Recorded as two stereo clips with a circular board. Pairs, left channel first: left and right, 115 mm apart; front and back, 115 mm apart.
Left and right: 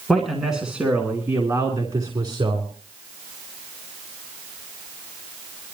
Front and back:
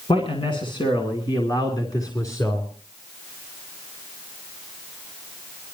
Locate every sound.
0.1 s a man speaking: 5° left, 2.5 m; by 2.7 s 60° right, 2.5 m